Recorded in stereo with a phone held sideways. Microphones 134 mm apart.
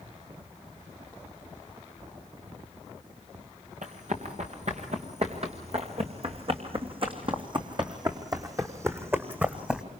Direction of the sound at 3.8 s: 60° right (ahead or behind).